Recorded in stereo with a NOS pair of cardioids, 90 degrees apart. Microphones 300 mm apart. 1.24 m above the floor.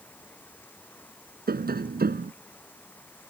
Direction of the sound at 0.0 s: 5° left.